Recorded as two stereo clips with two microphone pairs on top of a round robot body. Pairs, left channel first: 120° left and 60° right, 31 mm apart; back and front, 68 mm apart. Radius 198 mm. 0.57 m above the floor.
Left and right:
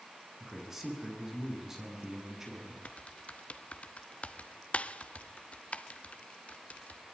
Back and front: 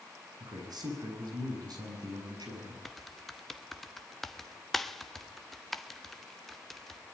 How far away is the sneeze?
No sneeze in this recording.